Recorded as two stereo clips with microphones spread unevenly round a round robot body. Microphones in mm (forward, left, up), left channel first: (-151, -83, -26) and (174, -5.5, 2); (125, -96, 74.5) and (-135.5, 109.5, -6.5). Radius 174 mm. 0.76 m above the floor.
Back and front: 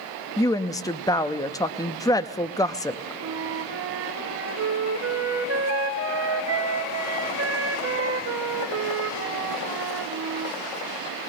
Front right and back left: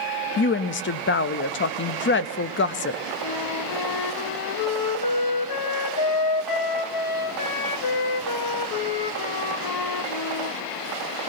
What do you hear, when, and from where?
0.4 s a woman speaking: 95° right, 0.6 m
3.2 s a flute: 25° right, 1.1 m